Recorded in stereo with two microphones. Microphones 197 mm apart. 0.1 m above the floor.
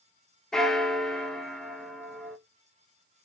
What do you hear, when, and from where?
0.5 s a bell: 5° left (ahead or behind), 0.6 m